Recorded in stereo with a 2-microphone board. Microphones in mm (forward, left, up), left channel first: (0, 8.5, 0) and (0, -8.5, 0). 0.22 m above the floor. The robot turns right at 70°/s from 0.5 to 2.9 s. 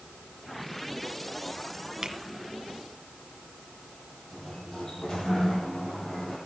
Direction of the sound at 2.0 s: 40° right (ahead or behind).